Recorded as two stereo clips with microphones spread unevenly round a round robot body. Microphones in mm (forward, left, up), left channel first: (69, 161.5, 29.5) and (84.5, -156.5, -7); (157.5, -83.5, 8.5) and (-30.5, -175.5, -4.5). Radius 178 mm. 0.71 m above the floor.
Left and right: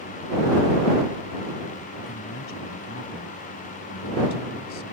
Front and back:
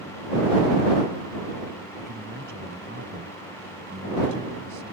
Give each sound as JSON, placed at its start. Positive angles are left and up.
{"t": 1.9, "sound": "a man speaking", "azimuth_deg": 150}